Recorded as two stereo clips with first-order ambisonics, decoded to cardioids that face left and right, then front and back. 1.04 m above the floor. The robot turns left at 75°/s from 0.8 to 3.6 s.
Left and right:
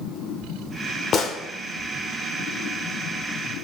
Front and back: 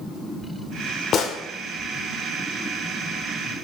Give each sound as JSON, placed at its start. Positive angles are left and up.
{"t": 1.1, "sound": "a gunshot", "azimuth_deg": 40, "distance_m": 1.0}